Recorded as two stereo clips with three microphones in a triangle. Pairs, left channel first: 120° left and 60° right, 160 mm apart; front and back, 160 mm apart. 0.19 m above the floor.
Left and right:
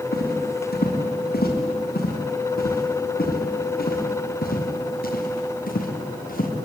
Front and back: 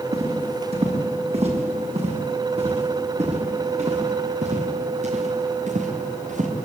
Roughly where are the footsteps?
Behind left.